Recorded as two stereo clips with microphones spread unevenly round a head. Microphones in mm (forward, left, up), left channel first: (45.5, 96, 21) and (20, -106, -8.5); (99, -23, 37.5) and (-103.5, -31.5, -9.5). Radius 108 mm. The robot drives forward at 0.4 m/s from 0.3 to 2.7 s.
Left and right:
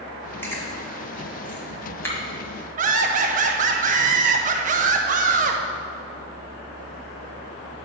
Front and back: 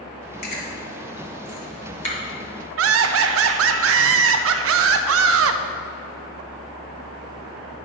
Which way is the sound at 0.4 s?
10° left.